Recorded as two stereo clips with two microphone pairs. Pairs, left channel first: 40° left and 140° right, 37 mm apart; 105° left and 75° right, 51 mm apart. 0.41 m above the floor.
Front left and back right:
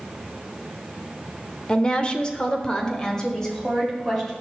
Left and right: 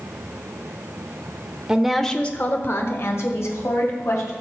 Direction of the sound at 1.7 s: 10° right.